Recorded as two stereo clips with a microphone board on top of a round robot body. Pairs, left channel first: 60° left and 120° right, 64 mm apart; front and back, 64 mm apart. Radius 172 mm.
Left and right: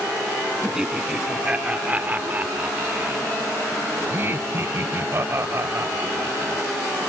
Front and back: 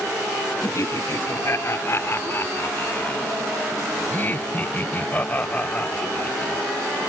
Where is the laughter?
40° right; by 6.6 s 70° right.